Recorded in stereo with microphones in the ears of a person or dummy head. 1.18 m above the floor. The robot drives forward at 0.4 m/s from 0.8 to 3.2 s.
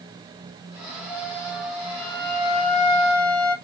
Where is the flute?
15° left (ahead or behind), 0.5 m; by 3.5 s 5° left (ahead or behind), 1.3 m.